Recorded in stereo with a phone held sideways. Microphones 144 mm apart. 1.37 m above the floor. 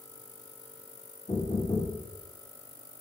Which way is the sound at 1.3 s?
55° left (ahead or behind).